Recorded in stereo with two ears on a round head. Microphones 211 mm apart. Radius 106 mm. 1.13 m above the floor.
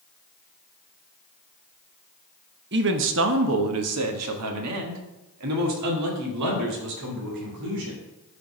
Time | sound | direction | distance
2.7 | a man speaking | 50° right (ahead or behind) | 1.0 m